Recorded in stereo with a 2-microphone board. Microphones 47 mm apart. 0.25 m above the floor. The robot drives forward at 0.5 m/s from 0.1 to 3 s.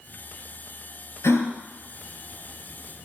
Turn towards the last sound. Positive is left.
turn(degrees=70)  # may be behind; listen again after turning